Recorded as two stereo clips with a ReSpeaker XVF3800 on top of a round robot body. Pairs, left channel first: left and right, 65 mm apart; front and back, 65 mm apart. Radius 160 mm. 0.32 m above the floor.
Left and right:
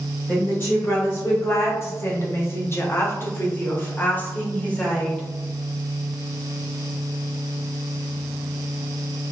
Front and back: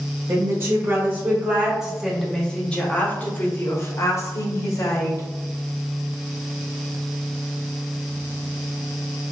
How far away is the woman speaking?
About 1.7 m.